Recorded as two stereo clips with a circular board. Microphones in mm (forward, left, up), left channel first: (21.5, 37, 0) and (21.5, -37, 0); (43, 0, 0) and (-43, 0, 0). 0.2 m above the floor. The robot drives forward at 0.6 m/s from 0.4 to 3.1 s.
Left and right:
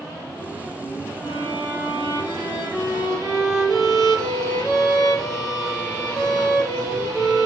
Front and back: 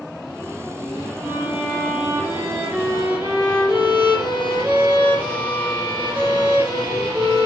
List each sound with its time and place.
1.2 s a violin: 105° left, 6 m; by 7.5 s 115° left, 6.5 m